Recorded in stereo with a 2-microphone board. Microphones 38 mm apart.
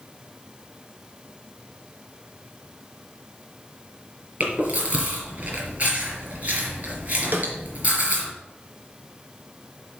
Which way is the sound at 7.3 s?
55° right (ahead or behind).